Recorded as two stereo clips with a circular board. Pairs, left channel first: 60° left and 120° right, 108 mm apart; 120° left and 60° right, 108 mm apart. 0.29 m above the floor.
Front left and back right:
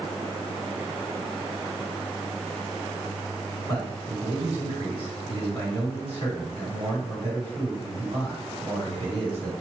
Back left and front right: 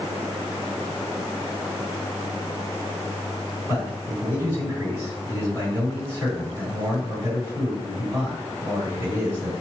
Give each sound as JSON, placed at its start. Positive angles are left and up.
{"t": 3.7, "sound": "a man speaking", "azimuth_deg": -125, "distance_m": 1.9}